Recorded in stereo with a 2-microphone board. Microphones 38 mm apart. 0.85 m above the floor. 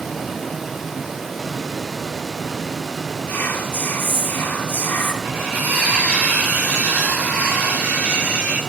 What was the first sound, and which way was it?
Whispering, 70° left (ahead or behind).